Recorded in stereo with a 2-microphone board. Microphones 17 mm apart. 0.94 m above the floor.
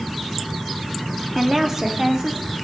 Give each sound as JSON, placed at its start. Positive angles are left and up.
{"t": 1.4, "sound": "a woman speaking", "side_deg": -20, "distance_m": 2.0}